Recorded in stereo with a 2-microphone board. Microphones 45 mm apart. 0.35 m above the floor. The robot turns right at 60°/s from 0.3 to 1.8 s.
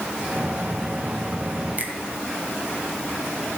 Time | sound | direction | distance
1.8 | a finger snap | 35° right (ahead or behind) | 1.4 m